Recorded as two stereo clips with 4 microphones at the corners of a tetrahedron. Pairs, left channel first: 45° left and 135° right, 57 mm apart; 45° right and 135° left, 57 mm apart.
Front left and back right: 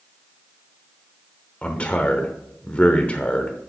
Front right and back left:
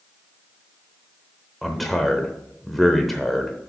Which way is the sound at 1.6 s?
40° left.